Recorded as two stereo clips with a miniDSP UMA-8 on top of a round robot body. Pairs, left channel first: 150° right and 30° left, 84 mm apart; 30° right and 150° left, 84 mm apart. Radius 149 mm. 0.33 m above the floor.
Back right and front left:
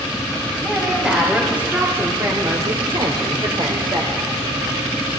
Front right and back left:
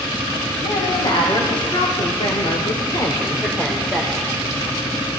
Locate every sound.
0.6 s a woman speaking: 55° right, 3.5 m; by 4.3 s 65° left, 2.5 m